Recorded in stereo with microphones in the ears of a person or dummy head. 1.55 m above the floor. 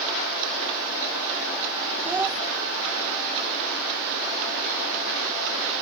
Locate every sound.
2.0 s a child speaking: 15° right (ahead or behind)